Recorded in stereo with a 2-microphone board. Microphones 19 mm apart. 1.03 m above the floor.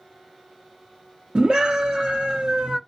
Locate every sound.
1.4 s a scream: 75° right (ahead or behind), 0.9 m